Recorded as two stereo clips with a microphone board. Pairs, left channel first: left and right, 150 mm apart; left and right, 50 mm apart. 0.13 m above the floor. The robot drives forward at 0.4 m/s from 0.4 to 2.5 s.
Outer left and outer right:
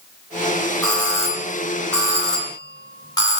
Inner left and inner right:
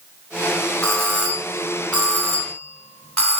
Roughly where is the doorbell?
Left.